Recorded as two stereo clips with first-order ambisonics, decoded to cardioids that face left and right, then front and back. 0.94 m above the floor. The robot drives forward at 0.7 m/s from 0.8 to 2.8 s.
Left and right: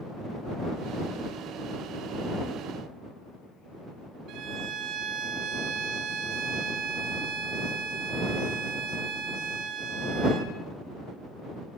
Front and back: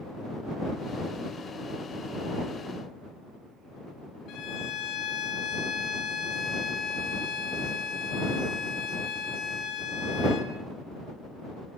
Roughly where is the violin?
Ahead right.